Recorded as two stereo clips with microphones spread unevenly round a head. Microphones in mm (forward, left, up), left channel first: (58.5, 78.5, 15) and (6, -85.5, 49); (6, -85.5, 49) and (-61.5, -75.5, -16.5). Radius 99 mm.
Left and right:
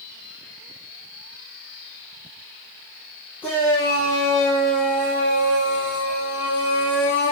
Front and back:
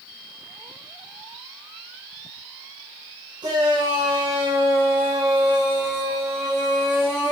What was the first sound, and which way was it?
A shout, 155° left.